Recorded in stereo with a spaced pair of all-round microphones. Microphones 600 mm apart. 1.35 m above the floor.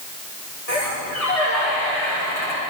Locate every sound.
0.7 s a squeak: 80° left, 8.5 m